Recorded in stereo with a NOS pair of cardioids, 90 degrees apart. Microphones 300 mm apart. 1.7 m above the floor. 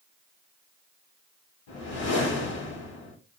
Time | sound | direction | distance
1.7 | a whoosh | 65° left | 1.7 m